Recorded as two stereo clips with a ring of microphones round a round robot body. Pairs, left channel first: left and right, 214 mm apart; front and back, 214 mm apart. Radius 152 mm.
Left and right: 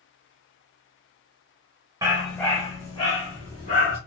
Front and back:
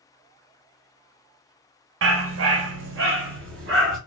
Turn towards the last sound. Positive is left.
turn(degrees=155)